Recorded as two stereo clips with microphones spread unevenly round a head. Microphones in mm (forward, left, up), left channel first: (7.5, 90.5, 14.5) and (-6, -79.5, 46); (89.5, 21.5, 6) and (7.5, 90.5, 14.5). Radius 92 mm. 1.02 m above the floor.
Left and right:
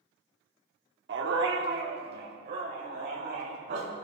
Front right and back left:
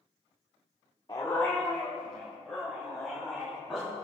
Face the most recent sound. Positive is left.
turn(degrees=-135)